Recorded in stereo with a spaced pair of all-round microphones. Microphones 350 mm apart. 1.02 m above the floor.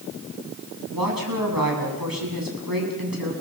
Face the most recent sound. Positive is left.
turn(degrees=-80)